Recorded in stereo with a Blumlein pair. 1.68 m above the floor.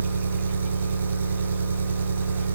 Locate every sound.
0.0 s an engine running: 70° right, 4 m